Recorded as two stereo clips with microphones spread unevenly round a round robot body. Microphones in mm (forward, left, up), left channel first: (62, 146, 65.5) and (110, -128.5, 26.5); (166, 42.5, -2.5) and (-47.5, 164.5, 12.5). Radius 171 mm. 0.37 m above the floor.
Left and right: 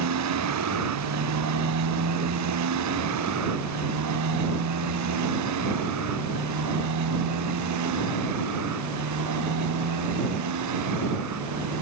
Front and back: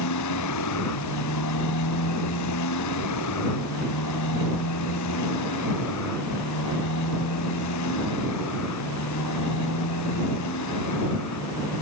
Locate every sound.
0.0 s a motorcycle: 60° right; by 11.8 s 70° right